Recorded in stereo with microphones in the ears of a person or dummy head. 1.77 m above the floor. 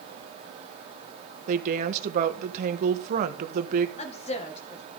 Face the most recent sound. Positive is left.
turn(degrees=30)  # may be behind; listen again after turning